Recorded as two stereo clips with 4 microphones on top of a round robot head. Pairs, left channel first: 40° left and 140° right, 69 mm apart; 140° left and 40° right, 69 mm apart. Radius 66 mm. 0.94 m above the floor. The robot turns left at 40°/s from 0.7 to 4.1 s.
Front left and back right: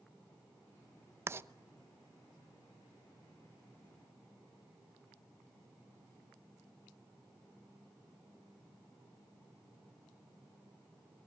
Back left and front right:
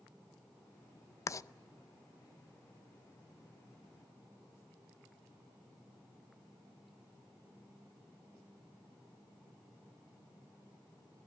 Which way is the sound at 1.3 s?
175° left.